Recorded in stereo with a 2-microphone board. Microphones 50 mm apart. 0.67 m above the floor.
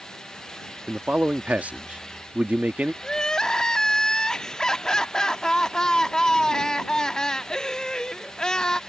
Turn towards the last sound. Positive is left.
turn(degrees=15)  # may be behind; listen again after turning